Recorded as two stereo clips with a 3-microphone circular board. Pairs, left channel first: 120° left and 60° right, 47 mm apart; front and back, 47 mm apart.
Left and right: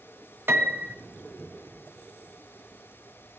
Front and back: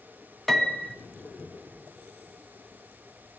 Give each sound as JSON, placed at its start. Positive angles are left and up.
{"t": 0.5, "sound": "a piano", "azimuth_deg": -85, "distance_m": 1.3}